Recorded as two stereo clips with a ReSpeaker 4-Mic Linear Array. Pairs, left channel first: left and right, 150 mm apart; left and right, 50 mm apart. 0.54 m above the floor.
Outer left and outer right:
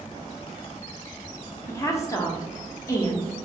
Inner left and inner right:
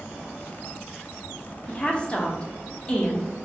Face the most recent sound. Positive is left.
turn(degrees=20)  # may be behind; listen again after turning